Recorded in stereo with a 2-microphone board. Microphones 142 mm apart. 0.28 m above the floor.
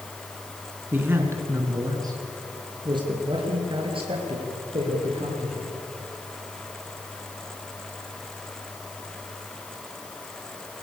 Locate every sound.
0.9 s a man speaking: 15° right (ahead or behind), 3.5 m; by 5.7 s 45° right (ahead or behind), 8.5 m